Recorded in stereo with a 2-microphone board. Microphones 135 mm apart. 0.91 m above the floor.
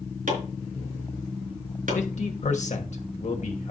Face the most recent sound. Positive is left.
turn(degrees=60)  # may be behind; listen again after turning